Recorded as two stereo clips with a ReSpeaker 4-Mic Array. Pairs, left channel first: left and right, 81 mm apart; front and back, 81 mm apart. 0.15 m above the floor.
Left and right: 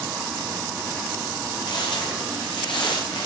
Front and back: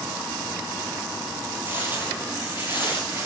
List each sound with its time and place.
1.7 s footsteps: 115° left, 8.5 m